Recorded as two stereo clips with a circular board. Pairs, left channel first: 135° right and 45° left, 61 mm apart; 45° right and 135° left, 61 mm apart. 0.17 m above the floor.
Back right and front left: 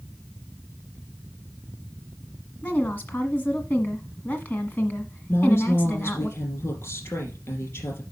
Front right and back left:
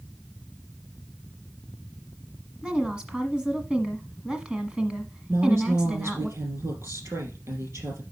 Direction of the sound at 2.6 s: 160° right.